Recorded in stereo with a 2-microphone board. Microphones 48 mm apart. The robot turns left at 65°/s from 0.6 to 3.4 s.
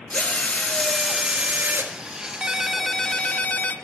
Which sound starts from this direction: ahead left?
A drill, at 0.1 s.